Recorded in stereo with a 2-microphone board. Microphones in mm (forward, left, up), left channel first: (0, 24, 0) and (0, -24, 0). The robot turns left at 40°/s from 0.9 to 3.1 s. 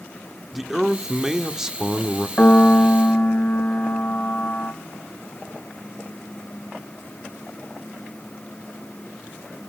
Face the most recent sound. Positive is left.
turn(degrees=50)  # may be behind; listen again after turning